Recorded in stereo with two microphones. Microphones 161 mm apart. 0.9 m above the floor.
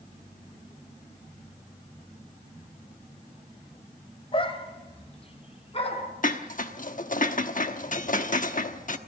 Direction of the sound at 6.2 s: 55° left (ahead or behind).